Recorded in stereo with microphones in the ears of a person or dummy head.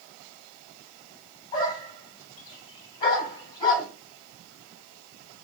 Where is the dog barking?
20° left (ahead or behind), 3.5 m.